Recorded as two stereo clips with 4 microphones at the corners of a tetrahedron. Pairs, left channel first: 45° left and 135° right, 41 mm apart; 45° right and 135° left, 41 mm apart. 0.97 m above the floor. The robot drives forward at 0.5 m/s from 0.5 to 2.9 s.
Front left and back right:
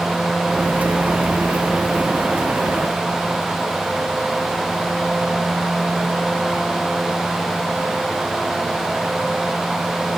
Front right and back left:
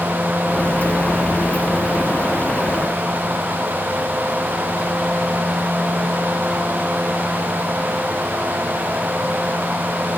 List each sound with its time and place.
Only background noise.